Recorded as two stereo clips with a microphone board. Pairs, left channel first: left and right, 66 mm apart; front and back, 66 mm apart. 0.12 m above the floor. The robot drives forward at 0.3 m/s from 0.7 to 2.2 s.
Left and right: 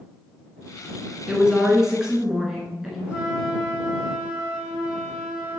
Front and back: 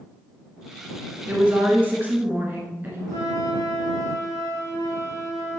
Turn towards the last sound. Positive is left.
turn(degrees=-165)